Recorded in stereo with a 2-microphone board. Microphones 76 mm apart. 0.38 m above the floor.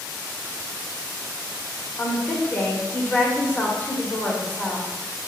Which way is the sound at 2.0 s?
25° left (ahead or behind).